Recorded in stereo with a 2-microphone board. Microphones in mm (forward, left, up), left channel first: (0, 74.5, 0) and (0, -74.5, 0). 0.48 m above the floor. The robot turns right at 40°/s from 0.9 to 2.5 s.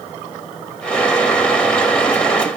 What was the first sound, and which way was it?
Only background noise.